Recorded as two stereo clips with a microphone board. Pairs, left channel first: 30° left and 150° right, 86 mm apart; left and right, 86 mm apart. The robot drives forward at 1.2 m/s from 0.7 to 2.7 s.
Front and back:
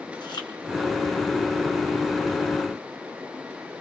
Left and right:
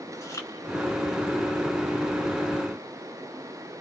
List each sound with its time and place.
0.1 s chewing: 40° left, 3.5 m